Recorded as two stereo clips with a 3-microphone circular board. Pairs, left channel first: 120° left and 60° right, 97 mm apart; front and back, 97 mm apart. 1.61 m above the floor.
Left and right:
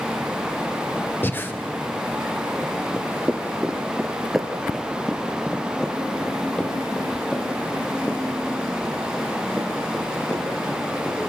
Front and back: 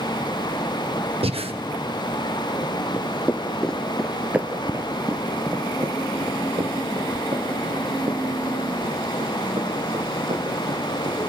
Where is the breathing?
170° right, 1.2 m.